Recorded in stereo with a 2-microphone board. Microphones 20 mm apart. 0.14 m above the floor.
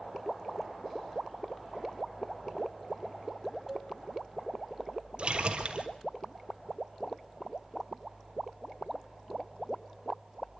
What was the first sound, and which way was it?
A cowbell, 15° right (ahead or behind).